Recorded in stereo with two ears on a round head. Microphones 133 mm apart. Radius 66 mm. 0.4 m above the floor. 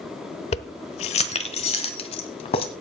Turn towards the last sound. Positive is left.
turn(degrees=40)  # may be behind; listen again after turning